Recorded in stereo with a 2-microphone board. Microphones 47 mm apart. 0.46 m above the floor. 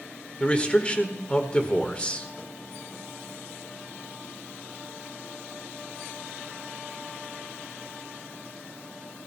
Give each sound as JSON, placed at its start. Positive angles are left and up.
{"t": 0.4, "sound": "a man speaking", "side_deg": 25, "distance_m": 1.6}